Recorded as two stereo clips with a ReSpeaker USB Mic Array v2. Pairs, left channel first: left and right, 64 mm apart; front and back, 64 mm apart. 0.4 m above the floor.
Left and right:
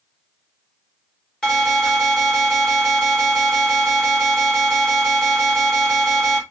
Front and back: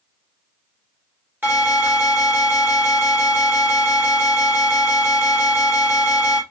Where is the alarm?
165° left, 2.5 m.